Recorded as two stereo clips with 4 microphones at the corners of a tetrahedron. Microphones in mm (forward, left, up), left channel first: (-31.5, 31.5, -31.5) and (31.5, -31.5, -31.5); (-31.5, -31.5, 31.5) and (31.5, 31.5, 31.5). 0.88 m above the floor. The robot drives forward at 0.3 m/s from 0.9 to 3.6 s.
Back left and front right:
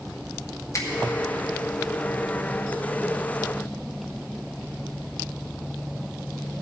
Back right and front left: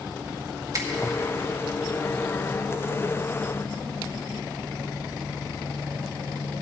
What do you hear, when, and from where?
0.7 s a finger snap: 90° left, 1.4 m